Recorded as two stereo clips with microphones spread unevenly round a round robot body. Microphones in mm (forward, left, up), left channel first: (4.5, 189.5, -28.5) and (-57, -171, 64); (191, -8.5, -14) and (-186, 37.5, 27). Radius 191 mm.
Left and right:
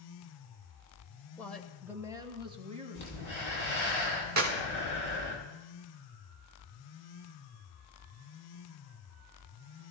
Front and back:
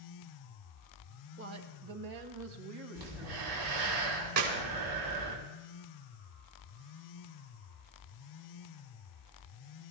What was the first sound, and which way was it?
A woman speaking, 135° left.